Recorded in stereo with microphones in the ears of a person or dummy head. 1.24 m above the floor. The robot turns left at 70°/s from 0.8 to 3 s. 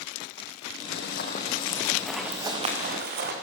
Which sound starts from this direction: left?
Running footsteps, at 0.9 s.